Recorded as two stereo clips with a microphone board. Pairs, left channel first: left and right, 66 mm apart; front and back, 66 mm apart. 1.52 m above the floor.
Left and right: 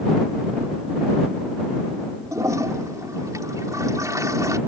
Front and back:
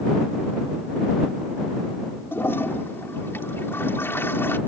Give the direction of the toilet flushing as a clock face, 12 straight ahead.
2 o'clock.